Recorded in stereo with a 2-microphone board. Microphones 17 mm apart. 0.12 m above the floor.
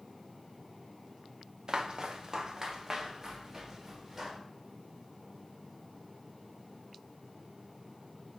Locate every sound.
1.7 s footsteps: 50° right (ahead or behind), 1.2 m; by 4.4 s 20° right (ahead or behind), 2.5 m